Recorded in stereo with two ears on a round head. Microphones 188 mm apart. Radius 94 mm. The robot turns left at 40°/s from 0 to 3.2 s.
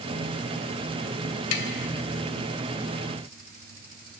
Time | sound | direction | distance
1.5 | tapping | 85° left | 0.9 m